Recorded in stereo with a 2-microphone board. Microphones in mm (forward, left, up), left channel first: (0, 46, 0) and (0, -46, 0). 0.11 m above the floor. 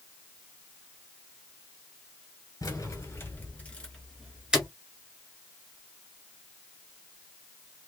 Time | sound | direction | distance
2.6 | keys jangling | 35° left (ahead or behind) | 1.3 m